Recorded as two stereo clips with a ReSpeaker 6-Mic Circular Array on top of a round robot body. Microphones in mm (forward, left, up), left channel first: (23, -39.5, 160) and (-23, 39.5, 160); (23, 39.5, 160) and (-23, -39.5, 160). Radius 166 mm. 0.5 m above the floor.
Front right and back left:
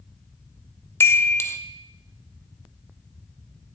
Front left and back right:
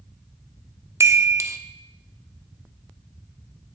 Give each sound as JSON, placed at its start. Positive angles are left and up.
{"t": 1.0, "sound": "a chime", "azimuth_deg": -95, "distance_m": 0.7}